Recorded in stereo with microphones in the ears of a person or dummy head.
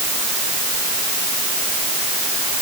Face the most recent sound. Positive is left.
No sound to turn to.